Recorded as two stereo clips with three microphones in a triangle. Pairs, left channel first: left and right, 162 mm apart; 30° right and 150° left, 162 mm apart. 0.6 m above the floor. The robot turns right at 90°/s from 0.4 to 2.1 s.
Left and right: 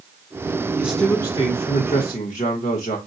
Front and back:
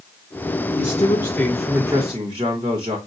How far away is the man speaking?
About 1.2 m.